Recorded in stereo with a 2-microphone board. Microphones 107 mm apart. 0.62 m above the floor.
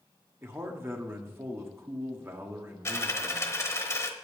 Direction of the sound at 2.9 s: 25° left (ahead or behind).